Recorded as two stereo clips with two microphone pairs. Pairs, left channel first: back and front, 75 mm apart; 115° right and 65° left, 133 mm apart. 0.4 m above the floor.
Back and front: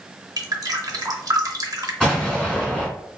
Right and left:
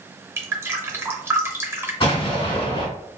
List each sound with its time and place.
0.4 s dripping: 5° right, 0.7 m
2.0 s an explosion: 110° right, 1.7 m